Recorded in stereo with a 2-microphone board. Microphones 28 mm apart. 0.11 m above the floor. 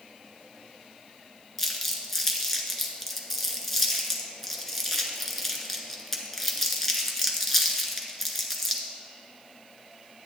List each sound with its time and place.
1.6 s crumpling: 10° left (ahead or behind), 1.4 m